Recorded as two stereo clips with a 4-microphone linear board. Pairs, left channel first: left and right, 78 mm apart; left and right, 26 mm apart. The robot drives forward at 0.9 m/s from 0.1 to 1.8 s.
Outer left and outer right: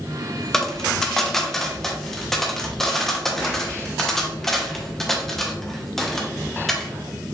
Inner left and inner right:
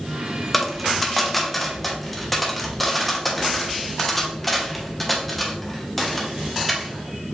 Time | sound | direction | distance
0.5 | a dropped coin | 5° left (ahead or behind) | 0.8 m